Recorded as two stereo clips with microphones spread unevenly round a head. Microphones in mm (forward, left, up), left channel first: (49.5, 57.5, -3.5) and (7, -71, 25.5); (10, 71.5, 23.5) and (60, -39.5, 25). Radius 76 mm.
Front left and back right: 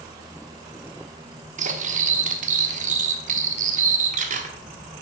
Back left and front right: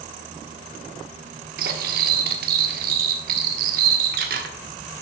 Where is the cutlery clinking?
80° right, 1.2 m.